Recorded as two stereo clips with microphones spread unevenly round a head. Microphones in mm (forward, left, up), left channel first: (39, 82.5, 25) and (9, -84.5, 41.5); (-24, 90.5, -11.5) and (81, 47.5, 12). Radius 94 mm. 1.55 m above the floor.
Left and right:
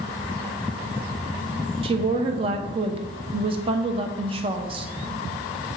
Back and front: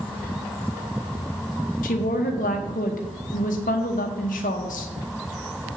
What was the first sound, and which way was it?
A woman speaking, 160° right.